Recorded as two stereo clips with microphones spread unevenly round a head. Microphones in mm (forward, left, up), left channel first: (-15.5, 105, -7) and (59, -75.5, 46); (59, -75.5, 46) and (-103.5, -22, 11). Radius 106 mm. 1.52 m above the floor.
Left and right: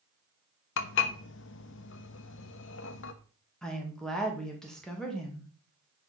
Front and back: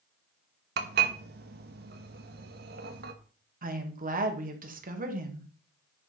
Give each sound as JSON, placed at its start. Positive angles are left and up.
{"t": 0.8, "sound": "dishes clattering", "azimuth_deg": 135, "distance_m": 0.9}
{"t": 3.6, "sound": "a woman speaking", "azimuth_deg": -160, "distance_m": 2.5}